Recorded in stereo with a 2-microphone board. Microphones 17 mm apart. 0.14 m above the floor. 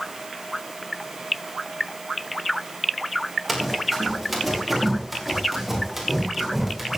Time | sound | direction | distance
3.5 | running footsteps | 10° left (ahead or behind) | 6.5 m